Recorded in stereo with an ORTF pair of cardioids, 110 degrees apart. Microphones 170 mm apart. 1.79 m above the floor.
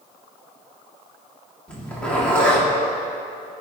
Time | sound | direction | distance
1.7 | a zipper | 5° left | 5 m